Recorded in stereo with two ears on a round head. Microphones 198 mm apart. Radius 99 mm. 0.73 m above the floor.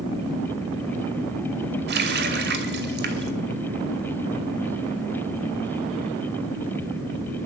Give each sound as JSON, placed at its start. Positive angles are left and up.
{"t": 1.9, "sound": "a running tap", "side_deg": -50, "distance_m": 2.5}